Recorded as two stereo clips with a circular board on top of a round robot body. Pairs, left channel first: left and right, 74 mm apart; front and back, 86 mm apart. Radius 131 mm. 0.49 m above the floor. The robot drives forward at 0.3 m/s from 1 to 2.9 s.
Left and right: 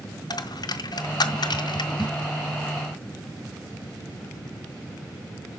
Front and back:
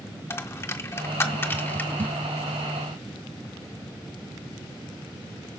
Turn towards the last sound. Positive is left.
turn(degrees=85)